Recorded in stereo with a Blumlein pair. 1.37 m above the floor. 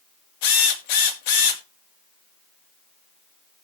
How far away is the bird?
I don't hear a bird.